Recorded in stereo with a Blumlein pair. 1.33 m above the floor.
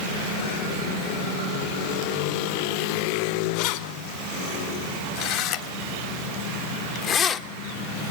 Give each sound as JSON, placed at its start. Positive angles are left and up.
{"t": 3.5, "sound": "keys jangling", "azimuth_deg": 45, "distance_m": 3.5}